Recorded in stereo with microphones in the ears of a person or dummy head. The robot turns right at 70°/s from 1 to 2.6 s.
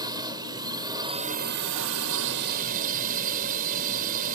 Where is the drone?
155° right; by 4.4 s 45° right.